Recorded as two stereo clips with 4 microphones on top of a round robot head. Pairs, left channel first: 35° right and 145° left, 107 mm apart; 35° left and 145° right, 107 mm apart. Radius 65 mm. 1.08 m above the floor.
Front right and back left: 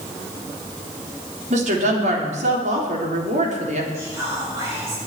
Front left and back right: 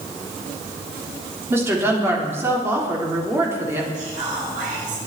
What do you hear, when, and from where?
1.5 s a woman speaking: 145° left, 3.5 m
3.9 s whispering: 150° right, 6.5 m